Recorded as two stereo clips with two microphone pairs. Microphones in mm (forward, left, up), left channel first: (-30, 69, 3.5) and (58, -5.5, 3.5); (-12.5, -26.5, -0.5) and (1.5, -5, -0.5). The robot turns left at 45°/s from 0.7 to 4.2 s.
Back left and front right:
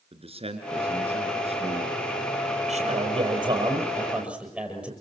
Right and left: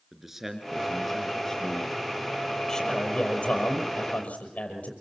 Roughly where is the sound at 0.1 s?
Ahead.